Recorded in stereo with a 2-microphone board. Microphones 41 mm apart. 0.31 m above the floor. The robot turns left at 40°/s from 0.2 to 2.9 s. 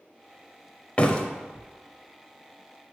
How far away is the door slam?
About 0.7 m.